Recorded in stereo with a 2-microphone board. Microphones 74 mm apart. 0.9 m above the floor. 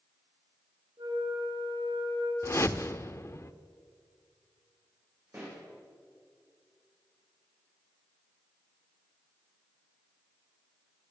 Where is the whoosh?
40° left (ahead or behind), 0.8 m.